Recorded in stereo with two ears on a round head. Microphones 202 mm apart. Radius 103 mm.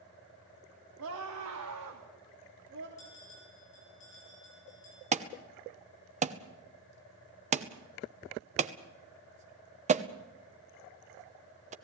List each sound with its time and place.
1.0 s a scream: 85° right, 3.5 m; by 2.9 s 55° right (ahead or behind), 3 m
3.0 s a bell: 35° left (ahead or behind), 10 m
5.1 s an alarm: 30° right (ahead or behind), 1.0 m